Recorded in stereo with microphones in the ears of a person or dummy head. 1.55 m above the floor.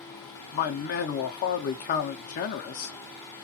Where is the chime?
I don't hear a chime.